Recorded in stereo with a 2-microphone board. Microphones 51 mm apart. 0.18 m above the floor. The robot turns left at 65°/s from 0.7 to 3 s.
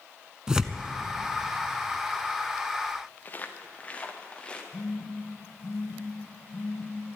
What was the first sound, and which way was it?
Tearing paper, 15° right (ahead or behind).